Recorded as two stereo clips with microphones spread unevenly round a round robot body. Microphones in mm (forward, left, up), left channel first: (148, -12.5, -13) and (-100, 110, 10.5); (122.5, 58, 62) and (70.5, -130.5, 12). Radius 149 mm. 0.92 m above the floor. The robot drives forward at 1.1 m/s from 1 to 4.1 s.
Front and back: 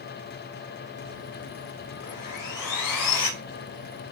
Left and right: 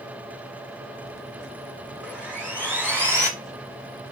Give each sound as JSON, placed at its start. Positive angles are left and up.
{"t": 2.0, "sound": "sawing", "azimuth_deg": -20, "distance_m": 4.5}